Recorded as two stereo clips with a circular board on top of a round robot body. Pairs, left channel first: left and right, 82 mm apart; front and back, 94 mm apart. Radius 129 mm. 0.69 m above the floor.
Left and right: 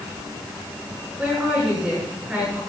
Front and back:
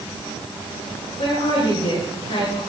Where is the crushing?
No crushing in this recording.